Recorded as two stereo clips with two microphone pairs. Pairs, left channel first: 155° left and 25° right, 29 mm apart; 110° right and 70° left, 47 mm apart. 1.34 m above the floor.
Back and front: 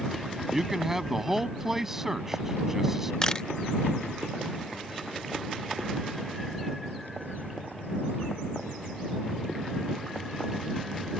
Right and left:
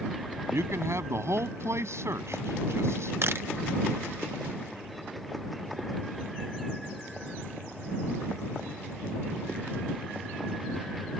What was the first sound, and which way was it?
A man speaking, 55° left.